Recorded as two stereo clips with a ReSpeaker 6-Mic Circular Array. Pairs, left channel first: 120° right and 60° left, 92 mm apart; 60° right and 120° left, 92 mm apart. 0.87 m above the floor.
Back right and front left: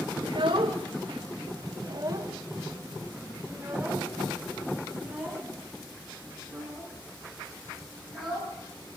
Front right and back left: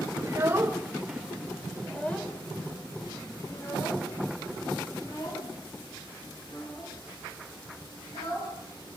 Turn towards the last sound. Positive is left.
turn(degrees=-30)